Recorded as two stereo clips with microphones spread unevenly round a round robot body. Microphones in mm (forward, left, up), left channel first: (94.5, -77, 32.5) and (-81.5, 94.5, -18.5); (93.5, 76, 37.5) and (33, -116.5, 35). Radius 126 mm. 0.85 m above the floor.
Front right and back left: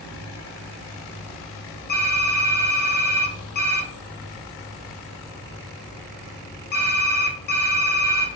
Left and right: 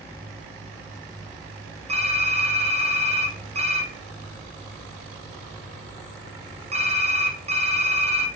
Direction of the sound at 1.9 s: 85° right.